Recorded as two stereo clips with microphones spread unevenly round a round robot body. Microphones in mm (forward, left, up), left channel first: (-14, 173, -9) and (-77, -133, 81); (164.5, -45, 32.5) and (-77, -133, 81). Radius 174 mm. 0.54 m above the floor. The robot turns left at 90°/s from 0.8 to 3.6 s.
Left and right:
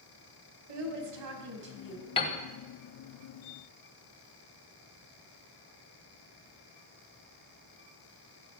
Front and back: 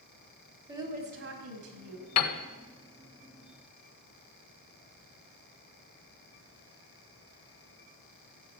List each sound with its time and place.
0.7 s a woman speaking: 85° right, 4 m; by 2.1 s 165° left, 4 m
2.2 s a piano: 10° left, 1.5 m; by 2.4 s 15° right, 1.5 m